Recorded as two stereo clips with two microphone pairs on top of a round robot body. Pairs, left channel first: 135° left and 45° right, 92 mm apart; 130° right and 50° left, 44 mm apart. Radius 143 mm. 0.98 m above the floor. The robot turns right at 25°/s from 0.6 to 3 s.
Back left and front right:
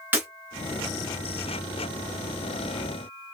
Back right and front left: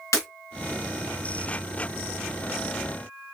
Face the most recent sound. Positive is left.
turn(degrees=-55)